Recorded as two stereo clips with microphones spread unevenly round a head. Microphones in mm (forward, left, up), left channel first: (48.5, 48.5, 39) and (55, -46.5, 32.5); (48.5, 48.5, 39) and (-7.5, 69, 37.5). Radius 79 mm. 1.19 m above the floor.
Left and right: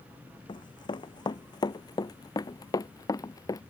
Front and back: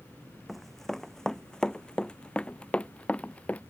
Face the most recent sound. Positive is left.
turn(degrees=45)